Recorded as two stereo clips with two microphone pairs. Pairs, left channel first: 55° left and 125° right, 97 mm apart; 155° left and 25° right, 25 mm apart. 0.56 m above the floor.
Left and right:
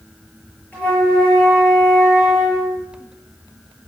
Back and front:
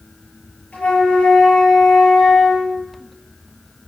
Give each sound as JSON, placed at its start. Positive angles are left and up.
{"t": 0.7, "sound": "a flute", "azimuth_deg": 130, "distance_m": 9.0}